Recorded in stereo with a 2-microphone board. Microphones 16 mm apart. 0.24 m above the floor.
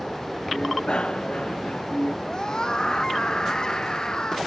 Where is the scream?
45° left (ahead or behind).